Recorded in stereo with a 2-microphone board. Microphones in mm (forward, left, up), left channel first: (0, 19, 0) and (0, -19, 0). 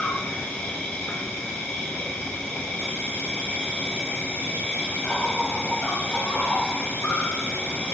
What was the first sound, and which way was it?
An insect, 45° left (ahead or behind).